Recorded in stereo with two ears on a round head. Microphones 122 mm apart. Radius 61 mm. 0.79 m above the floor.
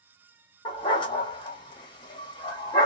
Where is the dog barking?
30° left (ahead or behind), 0.8 m.